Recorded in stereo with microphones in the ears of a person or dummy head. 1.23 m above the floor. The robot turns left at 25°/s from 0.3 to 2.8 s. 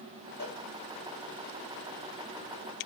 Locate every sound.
0.4 s a cowbell: 65° left (ahead or behind), 3.5 m; by 0.6 s 70° left (ahead or behind), 3.5 m